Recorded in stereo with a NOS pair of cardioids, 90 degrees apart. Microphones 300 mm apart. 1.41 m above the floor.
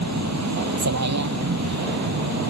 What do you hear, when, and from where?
0.0 s a vehicle: 65° right